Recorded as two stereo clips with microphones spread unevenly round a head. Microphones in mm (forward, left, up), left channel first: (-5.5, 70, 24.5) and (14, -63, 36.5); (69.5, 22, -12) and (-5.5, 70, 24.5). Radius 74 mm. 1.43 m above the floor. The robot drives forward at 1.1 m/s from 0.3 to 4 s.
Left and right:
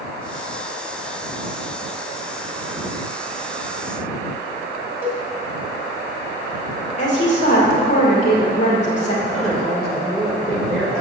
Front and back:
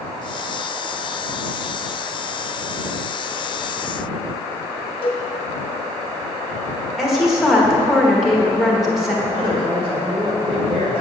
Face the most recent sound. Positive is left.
turn(degrees=-175)